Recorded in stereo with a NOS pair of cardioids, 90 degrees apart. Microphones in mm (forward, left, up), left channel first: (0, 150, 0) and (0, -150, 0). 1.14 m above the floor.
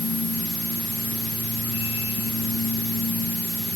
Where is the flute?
I don't hear a flute.